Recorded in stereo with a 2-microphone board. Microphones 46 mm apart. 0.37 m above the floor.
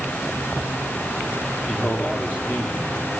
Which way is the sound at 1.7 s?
45° left (ahead or behind).